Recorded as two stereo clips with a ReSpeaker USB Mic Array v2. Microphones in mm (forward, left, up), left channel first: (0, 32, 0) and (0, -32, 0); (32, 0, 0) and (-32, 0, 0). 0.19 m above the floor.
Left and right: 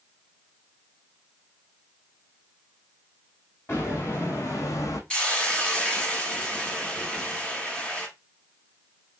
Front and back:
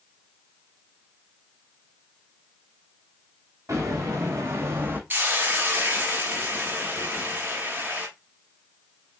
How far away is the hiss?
About 0.8 m.